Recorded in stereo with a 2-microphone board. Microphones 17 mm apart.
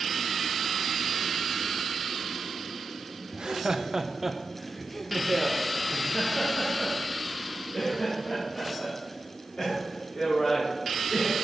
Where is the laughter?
55° right (ahead or behind), 0.7 m; by 11.3 s 50° left (ahead or behind), 4 m.